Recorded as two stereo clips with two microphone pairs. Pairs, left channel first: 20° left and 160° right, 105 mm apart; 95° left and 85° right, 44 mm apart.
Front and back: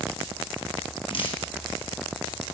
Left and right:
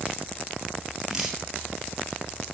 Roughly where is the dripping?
Ahead.